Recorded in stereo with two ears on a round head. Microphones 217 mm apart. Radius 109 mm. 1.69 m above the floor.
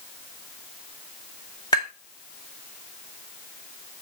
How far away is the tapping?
About 1.7 m.